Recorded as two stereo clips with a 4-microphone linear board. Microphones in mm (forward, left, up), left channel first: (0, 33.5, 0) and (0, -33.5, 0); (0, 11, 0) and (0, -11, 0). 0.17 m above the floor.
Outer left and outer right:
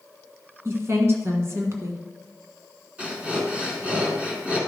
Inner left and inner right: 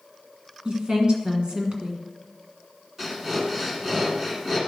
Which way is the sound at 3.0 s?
15° right (ahead or behind).